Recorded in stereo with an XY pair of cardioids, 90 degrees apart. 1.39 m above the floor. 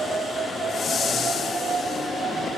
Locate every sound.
0.7 s a whoosh: 65° left, 0.5 m